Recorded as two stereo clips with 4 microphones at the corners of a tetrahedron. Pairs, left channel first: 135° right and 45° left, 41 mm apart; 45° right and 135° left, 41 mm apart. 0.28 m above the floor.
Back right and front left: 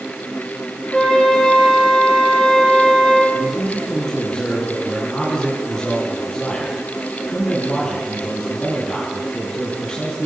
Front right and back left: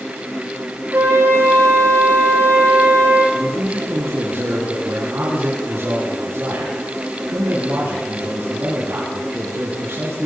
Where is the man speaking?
150° left, 4.5 m.